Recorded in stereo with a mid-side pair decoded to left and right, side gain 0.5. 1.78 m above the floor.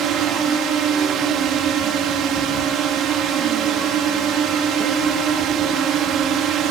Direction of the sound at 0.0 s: 65° right.